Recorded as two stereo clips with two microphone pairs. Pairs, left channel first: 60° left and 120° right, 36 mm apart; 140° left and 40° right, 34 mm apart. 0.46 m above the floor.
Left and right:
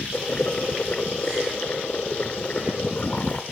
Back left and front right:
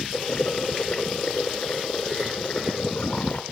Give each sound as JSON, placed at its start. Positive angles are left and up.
{"t": 0.1, "sound": "boiling", "azimuth_deg": 95, "distance_m": 0.7}